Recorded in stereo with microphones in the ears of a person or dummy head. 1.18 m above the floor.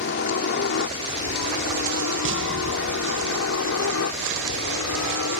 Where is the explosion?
65° right (ahead or behind).